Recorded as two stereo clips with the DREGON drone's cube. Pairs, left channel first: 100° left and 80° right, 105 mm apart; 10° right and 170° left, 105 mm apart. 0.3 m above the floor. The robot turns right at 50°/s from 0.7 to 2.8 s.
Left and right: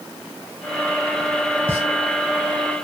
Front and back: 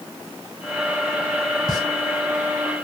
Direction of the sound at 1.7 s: 145° right.